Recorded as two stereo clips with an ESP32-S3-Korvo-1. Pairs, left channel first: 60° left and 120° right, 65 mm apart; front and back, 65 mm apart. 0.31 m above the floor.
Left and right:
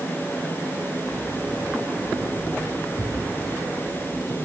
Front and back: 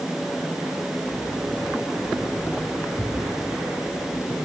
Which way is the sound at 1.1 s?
65° left.